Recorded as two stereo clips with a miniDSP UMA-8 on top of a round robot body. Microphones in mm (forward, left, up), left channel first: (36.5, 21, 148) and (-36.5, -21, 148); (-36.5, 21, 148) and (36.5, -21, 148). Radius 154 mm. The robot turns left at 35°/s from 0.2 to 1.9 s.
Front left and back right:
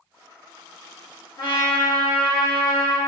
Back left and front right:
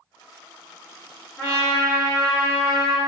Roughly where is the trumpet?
Left.